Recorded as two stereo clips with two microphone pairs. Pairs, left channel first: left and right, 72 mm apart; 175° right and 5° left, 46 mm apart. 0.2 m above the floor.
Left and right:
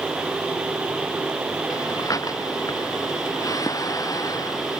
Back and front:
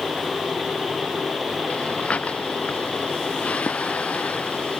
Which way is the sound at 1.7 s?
125° left.